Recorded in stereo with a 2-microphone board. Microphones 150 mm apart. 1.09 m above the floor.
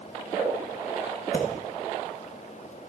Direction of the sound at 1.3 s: 75° left (ahead or behind).